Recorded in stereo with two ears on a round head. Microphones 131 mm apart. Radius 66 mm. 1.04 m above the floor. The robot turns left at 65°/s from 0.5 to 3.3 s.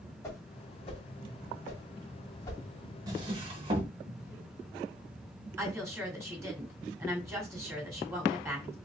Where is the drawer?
25° right (ahead or behind), 0.9 m; by 3.9 s 35° right (ahead or behind), 0.9 m.